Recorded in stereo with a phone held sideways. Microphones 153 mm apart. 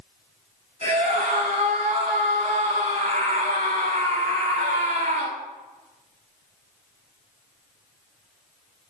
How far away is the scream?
About 7.5 m.